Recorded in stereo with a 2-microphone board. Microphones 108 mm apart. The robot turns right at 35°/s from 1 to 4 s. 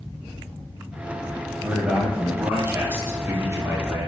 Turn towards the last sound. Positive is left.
turn(degrees=-25)  # may be behind; listen again after turning